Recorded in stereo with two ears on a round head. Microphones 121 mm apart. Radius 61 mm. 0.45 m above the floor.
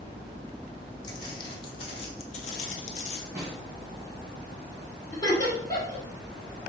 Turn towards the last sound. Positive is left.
turn(degrees=25)  # may be behind; listen again after turning